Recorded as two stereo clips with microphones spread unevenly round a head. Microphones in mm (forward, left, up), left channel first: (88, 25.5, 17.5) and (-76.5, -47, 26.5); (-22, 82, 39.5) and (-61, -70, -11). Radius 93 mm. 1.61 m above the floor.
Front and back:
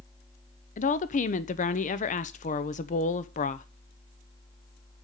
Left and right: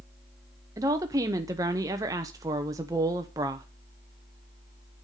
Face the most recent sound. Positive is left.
turn(degrees=-30)